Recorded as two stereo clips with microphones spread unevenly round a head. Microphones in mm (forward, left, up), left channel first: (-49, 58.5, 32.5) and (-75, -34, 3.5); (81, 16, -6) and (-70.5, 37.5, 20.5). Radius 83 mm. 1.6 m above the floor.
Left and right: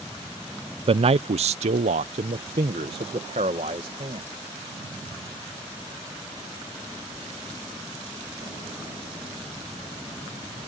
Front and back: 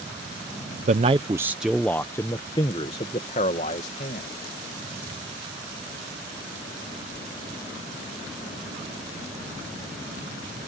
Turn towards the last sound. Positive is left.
turn(degrees=-55)